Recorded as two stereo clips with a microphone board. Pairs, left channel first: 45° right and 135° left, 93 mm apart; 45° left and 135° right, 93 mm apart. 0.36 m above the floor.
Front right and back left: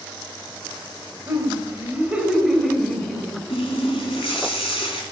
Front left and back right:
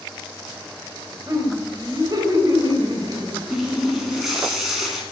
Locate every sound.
1.3 s laughter: 175° right, 2.5 m; by 3.4 s 120° right, 2.5 m
3.5 s a running tap: 45° right, 2.5 m